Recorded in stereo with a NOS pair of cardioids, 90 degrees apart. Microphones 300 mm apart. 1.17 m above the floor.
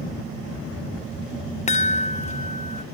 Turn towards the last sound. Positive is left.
turn(degrees=25)